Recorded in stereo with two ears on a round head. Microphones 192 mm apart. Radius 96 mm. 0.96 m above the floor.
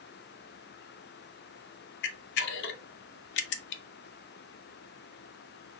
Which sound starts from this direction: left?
A camera shutter, at 2.0 s.